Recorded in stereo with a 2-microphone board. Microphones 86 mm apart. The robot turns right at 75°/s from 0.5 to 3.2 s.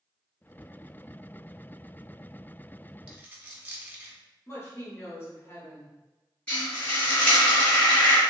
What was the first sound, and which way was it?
A dropped coin, 10° right (ahead or behind).